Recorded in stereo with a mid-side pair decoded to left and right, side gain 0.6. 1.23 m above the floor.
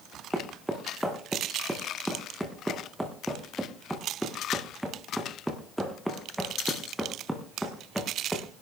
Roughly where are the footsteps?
Ahead.